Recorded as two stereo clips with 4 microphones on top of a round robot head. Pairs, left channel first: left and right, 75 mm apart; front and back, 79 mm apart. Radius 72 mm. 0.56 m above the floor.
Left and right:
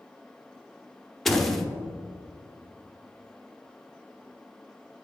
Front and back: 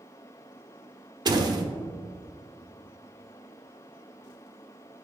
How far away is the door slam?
About 1.0 m.